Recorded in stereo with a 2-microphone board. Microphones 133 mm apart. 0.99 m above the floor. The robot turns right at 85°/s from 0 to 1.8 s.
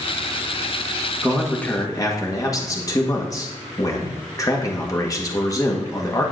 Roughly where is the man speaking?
Ahead.